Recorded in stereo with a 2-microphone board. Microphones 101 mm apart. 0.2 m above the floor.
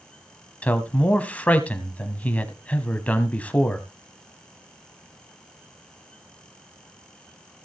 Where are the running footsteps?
No running footsteps in this recording.